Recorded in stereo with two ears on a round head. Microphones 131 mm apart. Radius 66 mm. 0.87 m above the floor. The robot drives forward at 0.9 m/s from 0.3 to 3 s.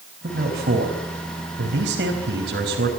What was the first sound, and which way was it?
A man speaking, 65° right (ahead or behind).